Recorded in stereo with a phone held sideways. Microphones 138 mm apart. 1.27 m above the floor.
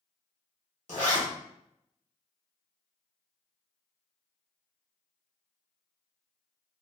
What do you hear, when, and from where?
0.9 s a zipper: 65° left (ahead or behind), 1.4 m